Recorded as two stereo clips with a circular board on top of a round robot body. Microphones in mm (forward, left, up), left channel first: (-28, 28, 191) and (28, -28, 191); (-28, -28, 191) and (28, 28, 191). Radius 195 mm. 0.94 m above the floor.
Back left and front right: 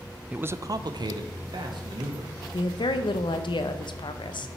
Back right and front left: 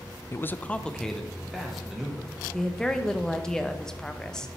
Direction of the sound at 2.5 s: 145° left.